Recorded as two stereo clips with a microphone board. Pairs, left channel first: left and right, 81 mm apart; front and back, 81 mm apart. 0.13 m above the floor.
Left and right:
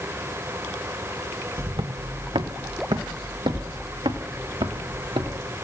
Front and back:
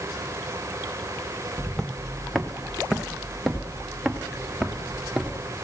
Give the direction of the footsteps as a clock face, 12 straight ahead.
3 o'clock.